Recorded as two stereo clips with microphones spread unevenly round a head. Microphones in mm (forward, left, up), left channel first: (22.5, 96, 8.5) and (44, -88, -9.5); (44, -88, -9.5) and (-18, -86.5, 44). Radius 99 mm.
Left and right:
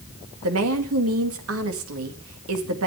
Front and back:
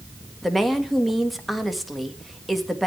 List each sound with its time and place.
0.4 s a woman speaking: 90° right, 2 m